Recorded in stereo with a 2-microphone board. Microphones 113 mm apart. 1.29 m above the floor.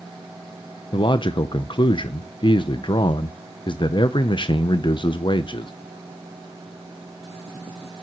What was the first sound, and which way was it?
A man speaking, 45° left (ahead or behind).